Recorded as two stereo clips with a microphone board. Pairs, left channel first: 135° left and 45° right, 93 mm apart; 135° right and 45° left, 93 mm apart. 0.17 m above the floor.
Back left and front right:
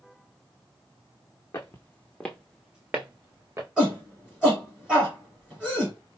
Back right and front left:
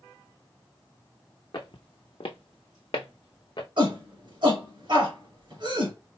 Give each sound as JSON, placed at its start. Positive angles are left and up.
{"t": 1.5, "sound": "footsteps", "azimuth_deg": -170, "distance_m": 0.9}
{"t": 3.8, "sound": "a shout", "azimuth_deg": 35, "distance_m": 2.5}